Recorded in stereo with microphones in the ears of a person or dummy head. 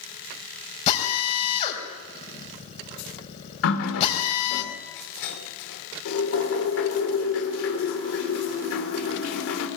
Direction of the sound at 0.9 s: 35° left (ahead or behind).